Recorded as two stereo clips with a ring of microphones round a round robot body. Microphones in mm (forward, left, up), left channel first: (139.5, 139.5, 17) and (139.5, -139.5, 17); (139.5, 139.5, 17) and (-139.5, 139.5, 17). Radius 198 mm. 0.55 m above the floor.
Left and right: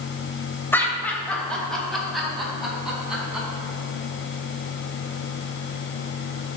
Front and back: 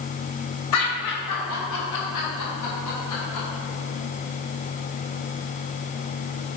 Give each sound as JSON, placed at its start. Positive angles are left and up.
{"t": 0.7, "sound": "laughter", "azimuth_deg": 10, "distance_m": 2.5}